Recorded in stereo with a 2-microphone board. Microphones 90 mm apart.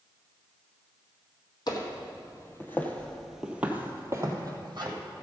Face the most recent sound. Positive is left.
turn(degrees=-50)  # may be behind; listen again after turning